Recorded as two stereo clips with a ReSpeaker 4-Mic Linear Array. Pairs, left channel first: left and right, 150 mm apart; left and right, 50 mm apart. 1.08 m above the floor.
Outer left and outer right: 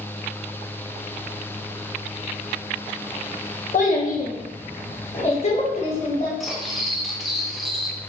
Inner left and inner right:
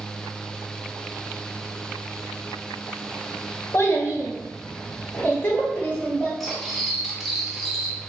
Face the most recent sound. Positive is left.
turn(degrees=0)  # may be behind; listen again after turning